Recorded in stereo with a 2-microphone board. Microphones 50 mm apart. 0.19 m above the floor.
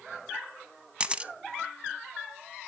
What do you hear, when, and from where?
1.0 s a camera shutter: 20° right (ahead or behind), 0.6 m